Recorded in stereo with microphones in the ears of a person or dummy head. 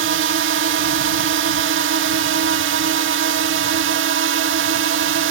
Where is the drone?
60° right (ahead or behind).